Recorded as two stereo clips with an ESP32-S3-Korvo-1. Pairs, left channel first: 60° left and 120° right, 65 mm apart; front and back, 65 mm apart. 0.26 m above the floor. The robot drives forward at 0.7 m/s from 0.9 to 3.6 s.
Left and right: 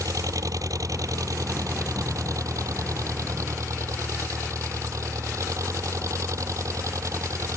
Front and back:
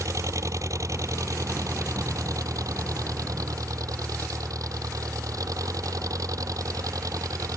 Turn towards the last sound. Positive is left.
turn(degrees=-155)